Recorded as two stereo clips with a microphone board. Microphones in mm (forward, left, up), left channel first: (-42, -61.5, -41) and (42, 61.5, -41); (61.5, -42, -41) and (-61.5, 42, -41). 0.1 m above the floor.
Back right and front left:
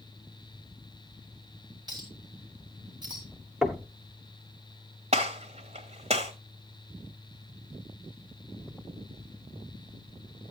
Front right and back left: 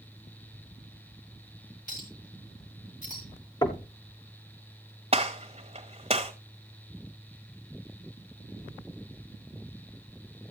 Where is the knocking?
30° right, 1.1 m.